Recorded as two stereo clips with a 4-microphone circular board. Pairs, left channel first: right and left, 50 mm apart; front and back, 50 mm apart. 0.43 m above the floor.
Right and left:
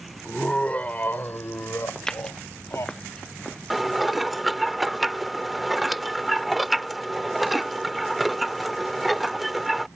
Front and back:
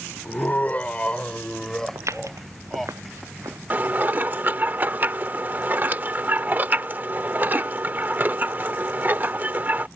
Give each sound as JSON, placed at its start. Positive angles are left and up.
{"t": 0.2, "sound": "laughter", "azimuth_deg": -15}
{"t": 1.9, "sound": "footsteps", "azimuth_deg": -165}
{"t": 3.7, "sound": "dishes clattering", "azimuth_deg": 175}